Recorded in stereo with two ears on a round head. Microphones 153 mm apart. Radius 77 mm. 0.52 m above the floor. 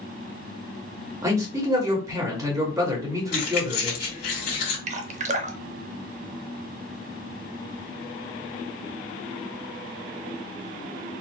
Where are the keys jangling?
60° left (ahead or behind), 1.8 m.